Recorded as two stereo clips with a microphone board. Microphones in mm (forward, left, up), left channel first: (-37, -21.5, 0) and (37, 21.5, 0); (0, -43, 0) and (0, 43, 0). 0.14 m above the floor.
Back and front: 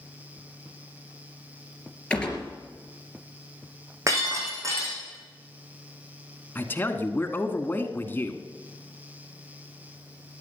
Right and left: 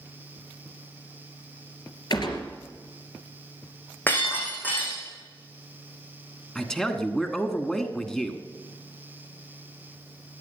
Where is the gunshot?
75° right, 2.5 m.